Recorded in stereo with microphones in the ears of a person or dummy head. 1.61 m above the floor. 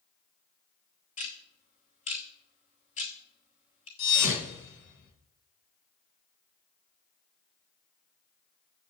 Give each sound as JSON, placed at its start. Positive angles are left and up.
{"t": 1.2, "sound": "ticking", "side_deg": 35, "distance_m": 2.5}
{"t": 4.0, "sound": "a thud", "side_deg": 60, "distance_m": 4.0}